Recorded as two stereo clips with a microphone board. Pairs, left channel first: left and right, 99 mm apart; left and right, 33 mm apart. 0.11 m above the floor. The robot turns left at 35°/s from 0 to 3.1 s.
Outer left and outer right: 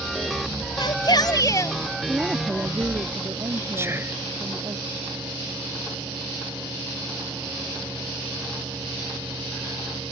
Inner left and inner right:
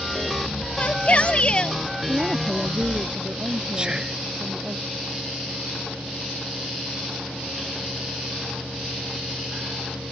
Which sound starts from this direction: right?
Whispering, at 3.8 s.